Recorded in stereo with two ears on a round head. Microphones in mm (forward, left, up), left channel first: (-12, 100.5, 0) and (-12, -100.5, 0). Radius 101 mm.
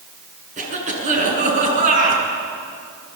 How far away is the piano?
No piano in this recording.